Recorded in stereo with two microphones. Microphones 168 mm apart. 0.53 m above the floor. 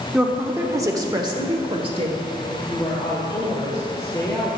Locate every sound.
0.1 s a woman speaking: 5° right (ahead or behind), 1.1 m; by 2.2 s 35° right (ahead or behind), 1.8 m
2.5 s a woman speaking: 20° left (ahead or behind), 2.0 m